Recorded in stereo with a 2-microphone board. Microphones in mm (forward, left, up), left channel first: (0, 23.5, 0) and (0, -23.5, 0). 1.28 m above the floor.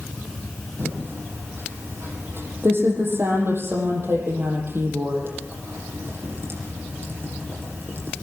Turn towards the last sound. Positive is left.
turn(degrees=-55)  # may be behind; listen again after turning